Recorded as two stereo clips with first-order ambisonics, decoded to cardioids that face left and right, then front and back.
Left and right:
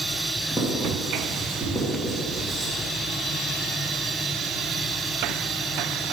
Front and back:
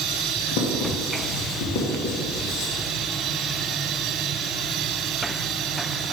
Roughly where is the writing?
Ahead.